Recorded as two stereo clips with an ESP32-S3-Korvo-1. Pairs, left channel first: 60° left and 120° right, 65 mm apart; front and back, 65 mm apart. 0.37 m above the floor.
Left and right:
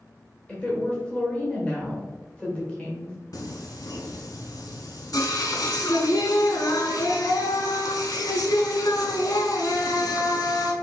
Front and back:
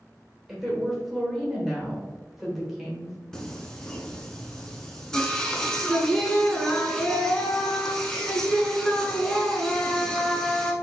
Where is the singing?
80° left, 0.8 m.